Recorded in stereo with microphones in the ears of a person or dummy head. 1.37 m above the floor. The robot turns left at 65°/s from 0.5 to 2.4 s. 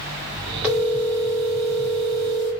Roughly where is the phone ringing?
Behind.